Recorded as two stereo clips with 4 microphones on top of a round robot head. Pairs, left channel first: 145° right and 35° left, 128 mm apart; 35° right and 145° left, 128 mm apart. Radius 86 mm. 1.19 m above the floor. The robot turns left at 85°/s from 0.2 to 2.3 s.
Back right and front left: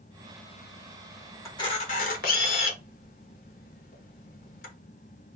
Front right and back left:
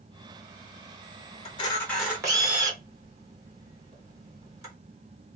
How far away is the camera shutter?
About 0.9 m.